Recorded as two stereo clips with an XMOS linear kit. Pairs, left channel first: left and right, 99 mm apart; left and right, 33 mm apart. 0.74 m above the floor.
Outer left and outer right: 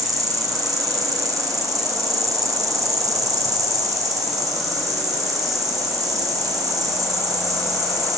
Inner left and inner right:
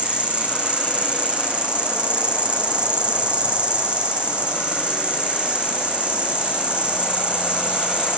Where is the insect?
35° right (ahead or behind), 2.5 m.